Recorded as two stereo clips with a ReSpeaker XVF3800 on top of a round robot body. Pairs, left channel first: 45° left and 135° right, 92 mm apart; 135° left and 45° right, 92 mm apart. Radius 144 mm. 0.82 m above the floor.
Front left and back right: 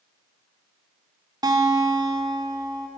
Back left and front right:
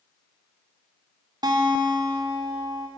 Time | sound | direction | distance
1.4 | a guitar | 90° right | 3.5 m